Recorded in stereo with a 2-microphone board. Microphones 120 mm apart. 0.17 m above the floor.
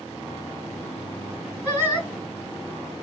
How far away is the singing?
About 1.7 m.